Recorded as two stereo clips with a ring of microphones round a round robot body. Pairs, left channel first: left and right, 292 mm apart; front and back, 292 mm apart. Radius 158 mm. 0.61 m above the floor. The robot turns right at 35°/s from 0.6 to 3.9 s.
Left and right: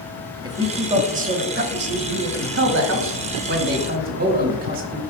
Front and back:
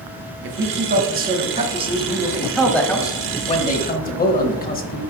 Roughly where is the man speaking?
Behind.